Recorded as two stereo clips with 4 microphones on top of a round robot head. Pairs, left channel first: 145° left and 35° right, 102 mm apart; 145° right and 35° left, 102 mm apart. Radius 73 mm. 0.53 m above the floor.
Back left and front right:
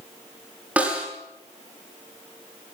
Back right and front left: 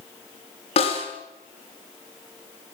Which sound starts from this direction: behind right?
A snare drum, at 0.8 s.